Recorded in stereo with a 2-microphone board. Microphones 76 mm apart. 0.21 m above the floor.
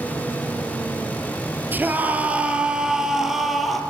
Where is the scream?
25° right (ahead or behind), 4 m; by 3.8 s centre (ahead or behind), 5 m.